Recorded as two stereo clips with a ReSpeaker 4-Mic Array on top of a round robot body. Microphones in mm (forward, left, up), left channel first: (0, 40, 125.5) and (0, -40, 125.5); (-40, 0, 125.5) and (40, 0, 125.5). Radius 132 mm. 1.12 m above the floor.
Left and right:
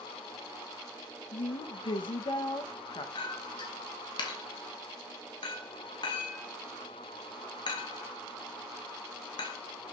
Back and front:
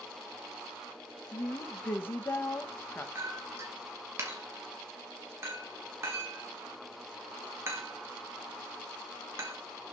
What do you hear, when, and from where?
1.3 s a woman speaking: 115° left, 1.0 m
3.1 s a clink: 60° left, 0.8 m